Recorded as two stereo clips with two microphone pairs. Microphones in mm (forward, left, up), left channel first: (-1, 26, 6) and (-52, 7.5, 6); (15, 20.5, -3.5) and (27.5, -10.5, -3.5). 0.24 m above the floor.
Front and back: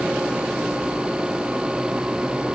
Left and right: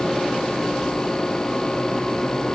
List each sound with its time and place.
Only background noise.